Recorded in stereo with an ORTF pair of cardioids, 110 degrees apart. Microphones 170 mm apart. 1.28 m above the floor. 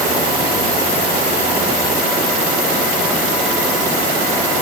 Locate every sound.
Only background noise.